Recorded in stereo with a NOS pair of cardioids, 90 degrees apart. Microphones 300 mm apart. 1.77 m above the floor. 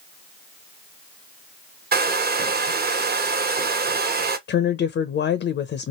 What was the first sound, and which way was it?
A hair dryer, 30° right.